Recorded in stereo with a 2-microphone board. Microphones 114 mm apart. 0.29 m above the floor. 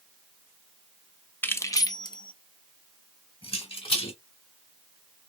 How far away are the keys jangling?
About 0.6 m.